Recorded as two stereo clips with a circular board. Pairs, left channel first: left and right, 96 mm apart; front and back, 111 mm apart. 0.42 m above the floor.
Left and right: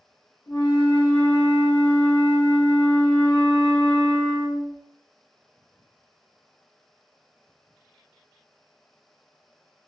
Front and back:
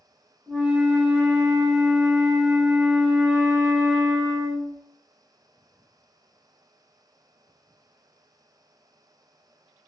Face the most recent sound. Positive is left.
turn(degrees=105)